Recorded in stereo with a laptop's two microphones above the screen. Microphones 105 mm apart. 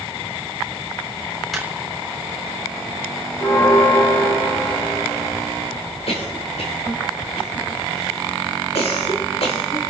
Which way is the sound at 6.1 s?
80° left.